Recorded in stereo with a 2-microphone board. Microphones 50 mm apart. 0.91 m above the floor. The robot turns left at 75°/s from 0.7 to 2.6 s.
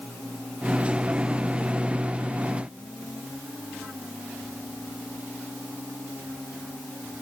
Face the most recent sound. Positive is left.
No sound to turn to.